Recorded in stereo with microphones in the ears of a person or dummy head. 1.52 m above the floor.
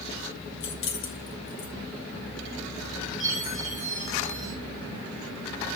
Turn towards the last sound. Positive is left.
turn(degrees=45)  # may be behind; listen again after turning